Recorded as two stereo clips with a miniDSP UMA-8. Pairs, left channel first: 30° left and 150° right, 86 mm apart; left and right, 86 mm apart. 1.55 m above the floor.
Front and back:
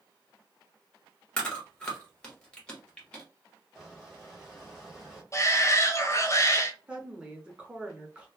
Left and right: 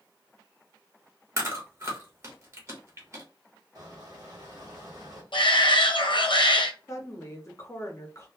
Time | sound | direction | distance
1.4 | chewing | 45° right | 1.0 m
3.8 | a squeak | 60° right | 1.3 m
5.3 | a shout | 80° left | 0.6 m
6.9 | a woman speaking | 135° left | 0.7 m